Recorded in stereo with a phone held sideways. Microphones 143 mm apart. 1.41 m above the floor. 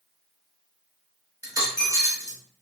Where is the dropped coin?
25° right (ahead or behind), 0.7 m.